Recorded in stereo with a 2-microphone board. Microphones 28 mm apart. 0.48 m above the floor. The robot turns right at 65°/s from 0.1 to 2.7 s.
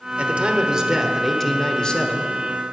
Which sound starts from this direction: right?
A man speaking, at 0.2 s.